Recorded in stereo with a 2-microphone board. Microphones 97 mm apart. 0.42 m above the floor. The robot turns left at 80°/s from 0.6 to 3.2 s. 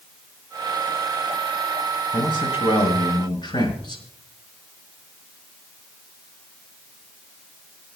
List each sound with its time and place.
2.1 s a man speaking: 140° left, 4.5 m; by 4.0 s 50° left, 4.5 m